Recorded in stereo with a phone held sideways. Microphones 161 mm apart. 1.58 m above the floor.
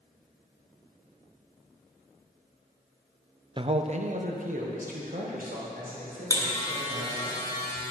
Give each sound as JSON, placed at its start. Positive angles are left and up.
{"t": 3.6, "sound": "a man speaking", "side_deg": -30, "distance_m": 0.5}
{"t": 6.3, "sound": "a buzzer", "side_deg": 20, "distance_m": 1.5}